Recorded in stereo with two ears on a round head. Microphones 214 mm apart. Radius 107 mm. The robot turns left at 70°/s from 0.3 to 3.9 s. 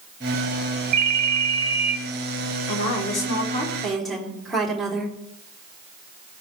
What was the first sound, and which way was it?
A ringtone, 75° right.